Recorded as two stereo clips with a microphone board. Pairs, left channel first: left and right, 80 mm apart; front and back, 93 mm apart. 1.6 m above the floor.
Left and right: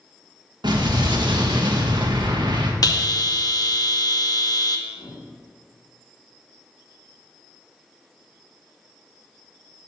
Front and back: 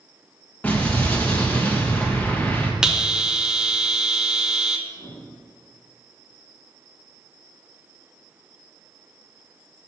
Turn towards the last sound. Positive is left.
turn(degrees=55)